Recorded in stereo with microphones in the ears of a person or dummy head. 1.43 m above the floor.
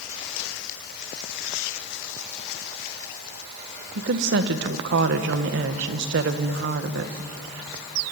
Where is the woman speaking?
60° right (ahead or behind), 1.4 m.